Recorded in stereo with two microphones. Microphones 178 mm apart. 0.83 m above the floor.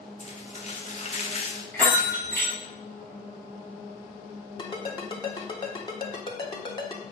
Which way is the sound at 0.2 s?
40° left (ahead or behind).